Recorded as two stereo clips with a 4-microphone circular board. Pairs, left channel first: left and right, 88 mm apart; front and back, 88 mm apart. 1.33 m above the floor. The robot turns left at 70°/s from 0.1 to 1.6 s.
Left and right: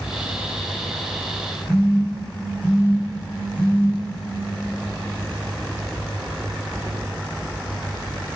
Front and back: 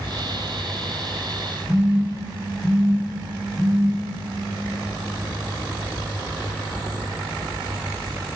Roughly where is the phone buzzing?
Left.